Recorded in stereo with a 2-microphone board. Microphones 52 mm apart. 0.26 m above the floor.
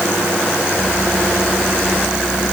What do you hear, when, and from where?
Only background noise.